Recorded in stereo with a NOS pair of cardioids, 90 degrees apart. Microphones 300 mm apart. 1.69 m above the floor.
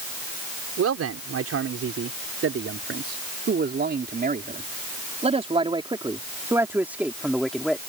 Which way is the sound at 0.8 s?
55° right.